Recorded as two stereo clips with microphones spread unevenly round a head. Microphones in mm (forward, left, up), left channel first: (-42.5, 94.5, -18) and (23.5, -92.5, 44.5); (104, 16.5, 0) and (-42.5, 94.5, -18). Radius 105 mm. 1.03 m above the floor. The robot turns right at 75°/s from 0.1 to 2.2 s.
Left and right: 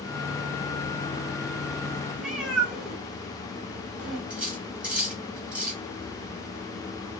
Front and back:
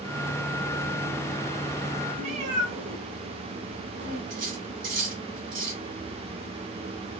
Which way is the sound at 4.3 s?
155° right.